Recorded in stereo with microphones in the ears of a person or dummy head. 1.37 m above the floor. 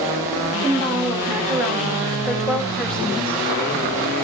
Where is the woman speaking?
15° right (ahead or behind), 3.5 m; by 3.4 s 10° left (ahead or behind), 2.5 m.